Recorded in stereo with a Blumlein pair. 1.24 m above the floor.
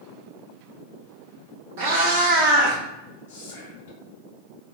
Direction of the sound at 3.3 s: 55° left.